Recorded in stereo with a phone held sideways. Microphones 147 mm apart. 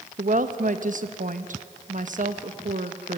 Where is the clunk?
I don't hear a clunk.